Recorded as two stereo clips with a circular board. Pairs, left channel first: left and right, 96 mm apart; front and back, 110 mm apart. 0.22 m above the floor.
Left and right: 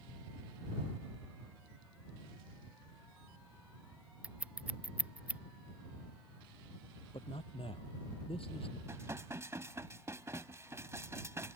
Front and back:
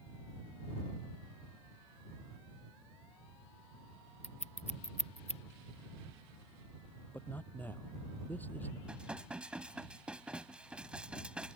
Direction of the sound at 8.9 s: 110° right.